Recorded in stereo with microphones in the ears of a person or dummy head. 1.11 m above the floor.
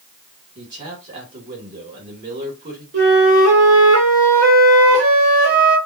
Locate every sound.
0.6 s a man speaking: 40° right (ahead or behind), 2 m
2.9 s a flute: 70° right (ahead or behind), 1.5 m